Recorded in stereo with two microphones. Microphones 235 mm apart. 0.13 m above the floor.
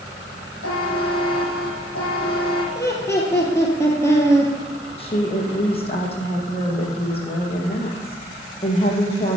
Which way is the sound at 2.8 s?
10° left (ahead or behind).